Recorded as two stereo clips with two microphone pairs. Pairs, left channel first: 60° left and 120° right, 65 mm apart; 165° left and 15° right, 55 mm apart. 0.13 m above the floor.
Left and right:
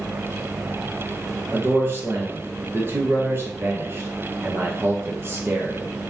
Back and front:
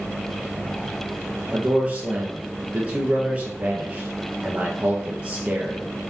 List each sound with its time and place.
1.5 s a man speaking: 75° right, 2.5 m